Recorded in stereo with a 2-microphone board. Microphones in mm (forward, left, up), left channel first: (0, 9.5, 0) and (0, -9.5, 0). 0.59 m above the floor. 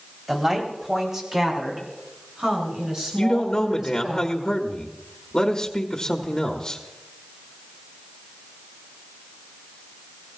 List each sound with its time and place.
0.3 s a woman speaking: 15° right (ahead or behind), 3 m; by 4.2 s 35° right (ahead or behind), 8.5 m
3.2 s a man speaking: 35° left (ahead or behind), 1.1 m